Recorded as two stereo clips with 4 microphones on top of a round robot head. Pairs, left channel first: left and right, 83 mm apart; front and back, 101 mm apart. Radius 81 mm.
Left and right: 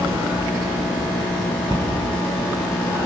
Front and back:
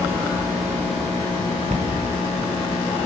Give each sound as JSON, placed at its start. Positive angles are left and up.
{"t": 1.7, "sound": "a cupboard door", "azimuth_deg": -150, "distance_m": 0.9}